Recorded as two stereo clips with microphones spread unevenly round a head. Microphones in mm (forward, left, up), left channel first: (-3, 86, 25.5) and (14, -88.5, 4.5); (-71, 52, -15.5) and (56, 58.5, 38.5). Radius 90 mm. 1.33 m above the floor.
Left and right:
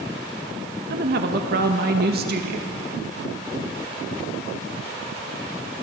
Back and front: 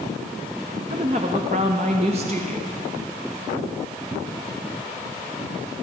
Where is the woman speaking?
55° right, 1.6 m.